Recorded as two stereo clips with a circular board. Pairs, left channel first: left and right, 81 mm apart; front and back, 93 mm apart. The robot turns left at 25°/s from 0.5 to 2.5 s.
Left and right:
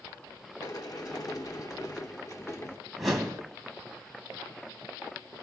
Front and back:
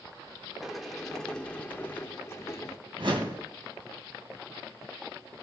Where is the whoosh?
Straight behind, 2 m.